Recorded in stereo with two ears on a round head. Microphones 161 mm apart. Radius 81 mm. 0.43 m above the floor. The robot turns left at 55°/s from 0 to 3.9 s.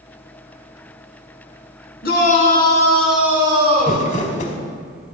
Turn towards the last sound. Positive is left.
turn(degrees=45)  # may be behind; listen again after turning